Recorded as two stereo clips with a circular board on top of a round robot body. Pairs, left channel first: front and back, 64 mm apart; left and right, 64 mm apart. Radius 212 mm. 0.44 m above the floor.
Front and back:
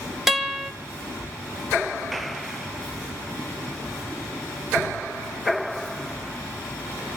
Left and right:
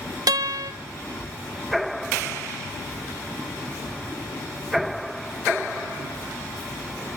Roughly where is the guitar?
Right.